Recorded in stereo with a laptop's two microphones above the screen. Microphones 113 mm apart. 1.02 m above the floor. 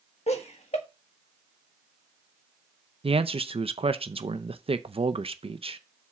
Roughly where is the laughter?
Left.